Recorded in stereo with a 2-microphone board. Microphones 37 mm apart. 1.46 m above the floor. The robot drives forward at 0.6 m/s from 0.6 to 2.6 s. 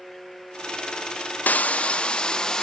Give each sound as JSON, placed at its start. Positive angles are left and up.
{"t": 1.5, "sound": "frying", "side_deg": 50, "distance_m": 0.6}